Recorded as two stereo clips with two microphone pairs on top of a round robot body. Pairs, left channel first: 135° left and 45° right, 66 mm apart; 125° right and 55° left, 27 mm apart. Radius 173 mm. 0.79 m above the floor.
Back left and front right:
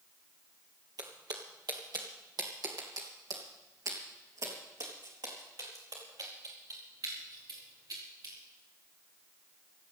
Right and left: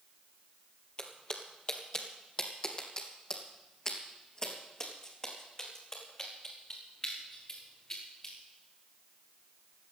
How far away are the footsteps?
About 1.4 m.